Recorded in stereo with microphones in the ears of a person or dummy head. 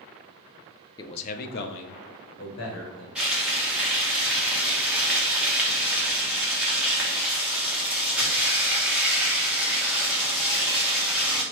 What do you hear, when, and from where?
1.0 s a man speaking: 25° left (ahead or behind), 0.5 m; by 3.0 s 80° left, 1.3 m
3.1 s frying: 5° right (ahead or behind), 0.8 m